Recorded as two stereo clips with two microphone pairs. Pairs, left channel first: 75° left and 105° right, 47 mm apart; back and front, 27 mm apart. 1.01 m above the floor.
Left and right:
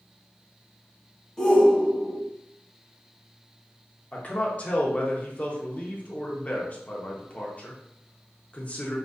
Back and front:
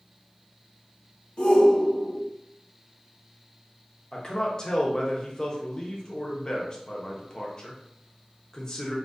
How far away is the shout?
About 0.9 m.